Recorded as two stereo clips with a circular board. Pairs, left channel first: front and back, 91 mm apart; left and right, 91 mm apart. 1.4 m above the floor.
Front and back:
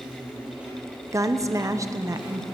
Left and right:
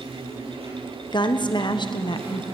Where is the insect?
100° right, 6.5 m.